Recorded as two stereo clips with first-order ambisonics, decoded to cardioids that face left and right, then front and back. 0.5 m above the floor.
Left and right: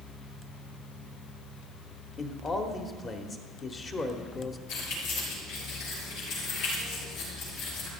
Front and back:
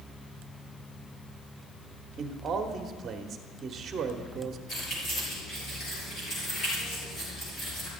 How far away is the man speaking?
About 1.0 m.